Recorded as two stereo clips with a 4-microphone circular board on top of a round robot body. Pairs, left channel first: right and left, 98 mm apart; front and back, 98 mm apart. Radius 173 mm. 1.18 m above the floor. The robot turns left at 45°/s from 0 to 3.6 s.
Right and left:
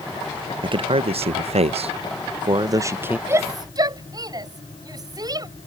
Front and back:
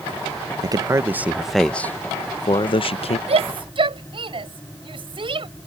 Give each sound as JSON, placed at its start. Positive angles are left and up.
{"t": 0.6, "sound": "a man speaking", "azimuth_deg": 130}
{"t": 3.3, "sound": "a shout", "azimuth_deg": 155}